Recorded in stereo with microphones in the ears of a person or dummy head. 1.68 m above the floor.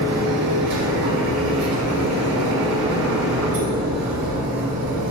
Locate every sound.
0.0 s a machine running: 70° right (ahead or behind), 2 m